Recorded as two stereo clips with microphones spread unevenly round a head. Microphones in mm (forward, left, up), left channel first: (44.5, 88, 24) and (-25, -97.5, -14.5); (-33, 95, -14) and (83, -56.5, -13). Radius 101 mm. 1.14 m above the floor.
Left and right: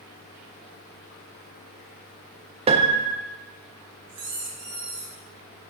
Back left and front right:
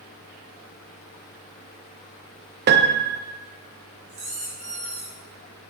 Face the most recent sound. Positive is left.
turn(degrees=-110)